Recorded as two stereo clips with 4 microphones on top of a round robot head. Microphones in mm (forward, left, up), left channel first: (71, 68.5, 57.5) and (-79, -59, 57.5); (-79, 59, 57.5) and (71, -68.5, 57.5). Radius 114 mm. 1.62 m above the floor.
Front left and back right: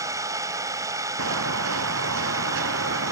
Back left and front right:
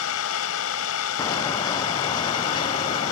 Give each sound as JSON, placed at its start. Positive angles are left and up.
{"t": 0.0, "sound": "an engine running", "azimuth_deg": 145}
{"t": 1.2, "sound": "footsteps", "azimuth_deg": -150}